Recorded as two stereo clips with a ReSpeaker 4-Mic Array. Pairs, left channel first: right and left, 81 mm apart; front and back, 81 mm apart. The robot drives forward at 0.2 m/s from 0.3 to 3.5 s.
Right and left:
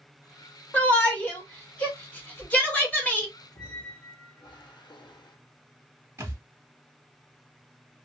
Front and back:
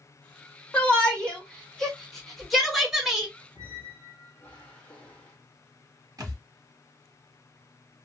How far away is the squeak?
About 1.2 m.